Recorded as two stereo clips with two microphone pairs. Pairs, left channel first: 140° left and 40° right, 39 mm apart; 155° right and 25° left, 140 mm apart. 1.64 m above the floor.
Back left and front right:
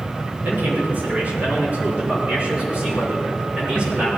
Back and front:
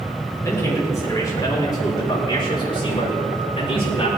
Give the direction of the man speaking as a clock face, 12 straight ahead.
3 o'clock.